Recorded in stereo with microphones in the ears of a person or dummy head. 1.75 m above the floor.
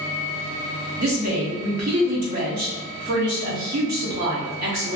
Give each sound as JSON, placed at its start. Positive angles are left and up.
{"t": 1.0, "sound": "a woman speaking", "side_deg": -40, "distance_m": 0.8}